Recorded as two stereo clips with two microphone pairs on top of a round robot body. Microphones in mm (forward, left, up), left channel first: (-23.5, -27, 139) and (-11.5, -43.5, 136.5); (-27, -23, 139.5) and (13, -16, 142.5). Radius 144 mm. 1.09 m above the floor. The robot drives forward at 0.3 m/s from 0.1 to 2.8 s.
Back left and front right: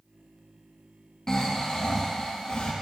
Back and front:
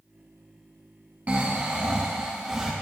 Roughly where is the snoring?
Ahead left.